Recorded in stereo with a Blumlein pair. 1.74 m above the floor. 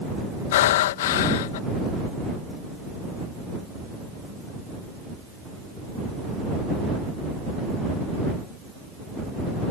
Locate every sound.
0.5 s breathing: 55° left